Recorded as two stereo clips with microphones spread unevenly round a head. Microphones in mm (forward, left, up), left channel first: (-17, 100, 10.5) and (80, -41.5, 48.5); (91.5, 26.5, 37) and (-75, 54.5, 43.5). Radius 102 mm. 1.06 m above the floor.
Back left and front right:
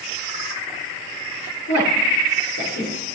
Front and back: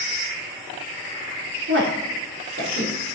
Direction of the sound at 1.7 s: 160° left.